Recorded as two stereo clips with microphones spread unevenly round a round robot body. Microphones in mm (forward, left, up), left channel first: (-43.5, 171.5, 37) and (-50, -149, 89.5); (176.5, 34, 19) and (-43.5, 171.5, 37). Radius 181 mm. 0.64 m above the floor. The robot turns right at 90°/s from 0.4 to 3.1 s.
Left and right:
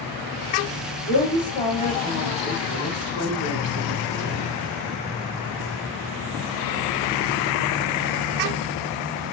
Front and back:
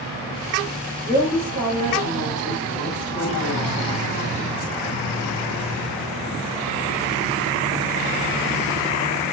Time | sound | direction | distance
1.1 | a woman speaking | 75° left | 3.5 m